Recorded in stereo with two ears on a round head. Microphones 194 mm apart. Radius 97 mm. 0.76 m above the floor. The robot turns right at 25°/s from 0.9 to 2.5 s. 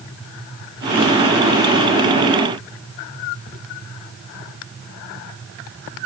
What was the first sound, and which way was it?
Only background noise.